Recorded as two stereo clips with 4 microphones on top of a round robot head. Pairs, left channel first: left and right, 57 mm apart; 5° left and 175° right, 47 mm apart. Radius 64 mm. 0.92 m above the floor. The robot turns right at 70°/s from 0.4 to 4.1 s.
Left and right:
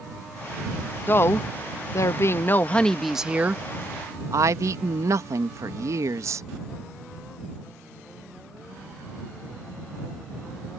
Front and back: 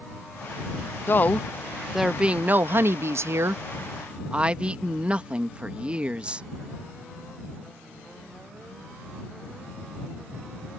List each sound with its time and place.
1.1 s a woman speaking: 40° left; by 6.5 s 105° right